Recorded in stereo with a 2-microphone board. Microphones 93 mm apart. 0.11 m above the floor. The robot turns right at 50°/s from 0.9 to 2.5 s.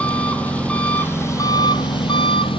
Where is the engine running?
15° left, 1.0 m; by 2.6 s 95° left, 1.0 m.